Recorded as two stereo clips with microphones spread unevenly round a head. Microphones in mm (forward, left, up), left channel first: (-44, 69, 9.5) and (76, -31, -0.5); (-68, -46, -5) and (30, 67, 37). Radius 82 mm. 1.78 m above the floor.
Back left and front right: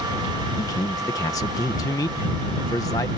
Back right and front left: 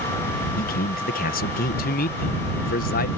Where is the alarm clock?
I don't hear an alarm clock.